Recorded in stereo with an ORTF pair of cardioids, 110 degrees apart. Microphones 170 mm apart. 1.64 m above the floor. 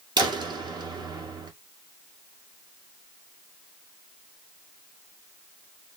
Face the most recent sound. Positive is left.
turn(degrees=-25)